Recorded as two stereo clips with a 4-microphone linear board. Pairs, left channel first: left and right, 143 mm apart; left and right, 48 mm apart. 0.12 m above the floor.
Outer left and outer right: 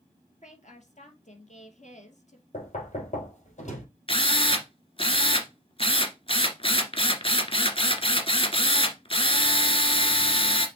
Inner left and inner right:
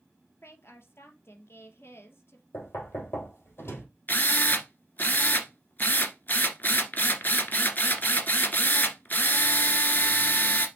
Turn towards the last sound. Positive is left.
turn(degrees=40)  # may be behind; listen again after turning